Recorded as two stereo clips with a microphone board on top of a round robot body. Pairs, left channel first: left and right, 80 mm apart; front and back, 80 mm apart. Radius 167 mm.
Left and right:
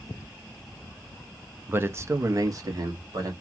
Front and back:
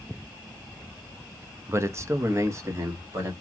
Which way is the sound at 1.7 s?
145° right.